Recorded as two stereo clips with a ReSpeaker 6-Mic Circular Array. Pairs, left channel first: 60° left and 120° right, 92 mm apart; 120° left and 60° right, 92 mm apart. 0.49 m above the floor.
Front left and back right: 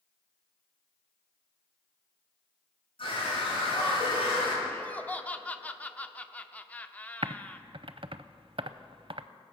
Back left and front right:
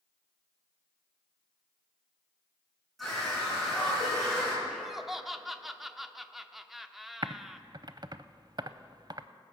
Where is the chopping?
I don't hear chopping.